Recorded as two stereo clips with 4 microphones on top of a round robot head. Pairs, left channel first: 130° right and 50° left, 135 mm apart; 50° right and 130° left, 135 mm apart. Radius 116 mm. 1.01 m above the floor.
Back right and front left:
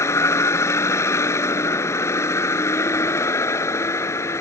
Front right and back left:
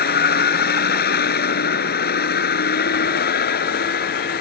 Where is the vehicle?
55° right.